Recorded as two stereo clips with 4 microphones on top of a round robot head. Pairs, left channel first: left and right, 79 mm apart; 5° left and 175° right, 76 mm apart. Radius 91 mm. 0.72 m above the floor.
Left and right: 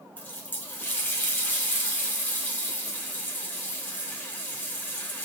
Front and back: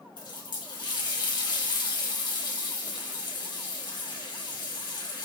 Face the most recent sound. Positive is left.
turn(degrees=20)